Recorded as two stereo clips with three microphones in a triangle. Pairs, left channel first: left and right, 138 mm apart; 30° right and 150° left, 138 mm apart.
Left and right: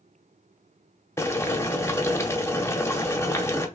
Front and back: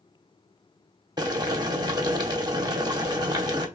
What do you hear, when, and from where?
1.2 s boiling: 140° left, 0.8 m